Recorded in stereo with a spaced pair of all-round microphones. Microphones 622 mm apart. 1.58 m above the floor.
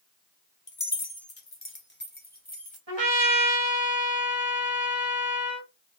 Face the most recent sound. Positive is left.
turn(degrees=-45)  # may be behind; listen again after turning